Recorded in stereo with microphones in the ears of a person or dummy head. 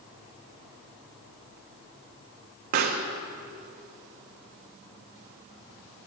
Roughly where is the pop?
Right.